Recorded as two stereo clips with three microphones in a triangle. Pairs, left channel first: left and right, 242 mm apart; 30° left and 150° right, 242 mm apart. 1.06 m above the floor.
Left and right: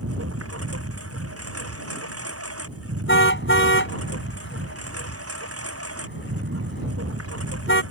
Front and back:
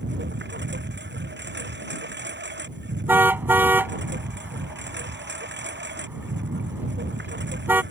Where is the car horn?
130° left.